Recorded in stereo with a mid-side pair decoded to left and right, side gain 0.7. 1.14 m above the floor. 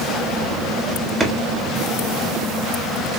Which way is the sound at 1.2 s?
10° right.